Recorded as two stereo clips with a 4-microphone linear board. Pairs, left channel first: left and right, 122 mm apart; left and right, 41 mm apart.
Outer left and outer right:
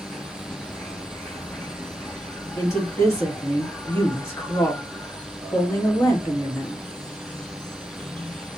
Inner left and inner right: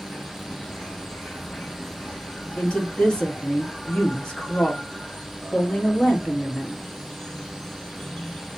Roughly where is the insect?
Centre.